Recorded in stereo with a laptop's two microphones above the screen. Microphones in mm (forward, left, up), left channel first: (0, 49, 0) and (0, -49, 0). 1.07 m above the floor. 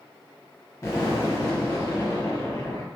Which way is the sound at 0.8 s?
30° left (ahead or behind).